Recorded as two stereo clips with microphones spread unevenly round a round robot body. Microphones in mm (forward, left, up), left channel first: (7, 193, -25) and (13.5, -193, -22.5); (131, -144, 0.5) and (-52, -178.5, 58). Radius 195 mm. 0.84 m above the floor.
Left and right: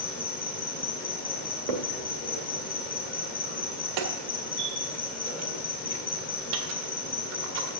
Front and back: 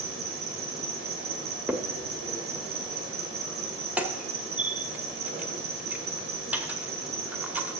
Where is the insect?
150° left, 1.8 m.